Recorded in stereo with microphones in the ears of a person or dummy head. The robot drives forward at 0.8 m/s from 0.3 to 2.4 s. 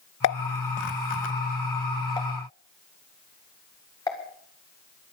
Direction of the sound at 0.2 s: 75° left (ahead or behind).